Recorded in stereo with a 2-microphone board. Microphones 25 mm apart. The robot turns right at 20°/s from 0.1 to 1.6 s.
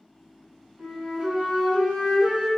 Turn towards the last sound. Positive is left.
turn(degrees=-40)  # may be behind; listen again after turning